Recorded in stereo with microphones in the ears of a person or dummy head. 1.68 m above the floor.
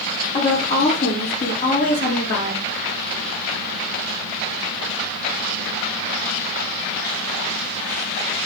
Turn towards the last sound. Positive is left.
turn(degrees=60)  # may be behind; listen again after turning